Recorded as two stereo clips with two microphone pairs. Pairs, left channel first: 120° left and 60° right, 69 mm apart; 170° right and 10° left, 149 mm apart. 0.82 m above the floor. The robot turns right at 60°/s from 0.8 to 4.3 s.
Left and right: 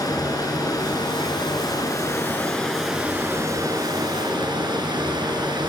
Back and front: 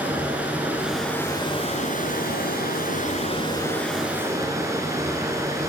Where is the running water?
90° left, 3 m; by 5.7 s 60° right, 3 m.